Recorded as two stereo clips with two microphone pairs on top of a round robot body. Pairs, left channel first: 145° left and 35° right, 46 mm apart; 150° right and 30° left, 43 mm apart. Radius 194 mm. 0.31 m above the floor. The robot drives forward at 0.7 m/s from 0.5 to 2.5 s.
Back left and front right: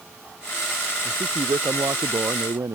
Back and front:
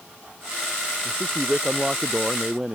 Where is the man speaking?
40° right; by 2.8 s 45° right.